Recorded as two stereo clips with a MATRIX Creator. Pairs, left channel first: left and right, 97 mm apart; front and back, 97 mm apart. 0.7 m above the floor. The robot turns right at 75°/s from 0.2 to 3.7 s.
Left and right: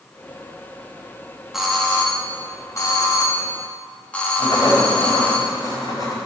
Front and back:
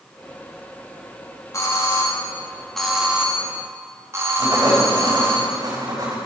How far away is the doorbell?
About 1.7 m.